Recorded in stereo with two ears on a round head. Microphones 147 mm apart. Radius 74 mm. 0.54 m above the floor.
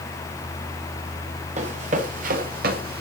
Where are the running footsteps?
40° right (ahead or behind), 4.5 m; by 3.0 s 65° right (ahead or behind), 4.5 m.